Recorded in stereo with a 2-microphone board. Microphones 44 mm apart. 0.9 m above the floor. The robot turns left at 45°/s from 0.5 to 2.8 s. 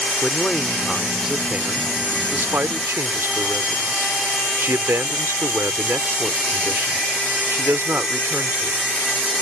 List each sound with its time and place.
0.2 s a man speaking: 20° left; by 8.8 s 85° right